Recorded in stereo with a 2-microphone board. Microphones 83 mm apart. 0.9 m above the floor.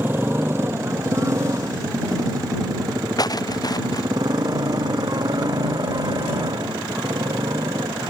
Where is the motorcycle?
25° right (ahead or behind); by 8.1 s 55° right (ahead or behind).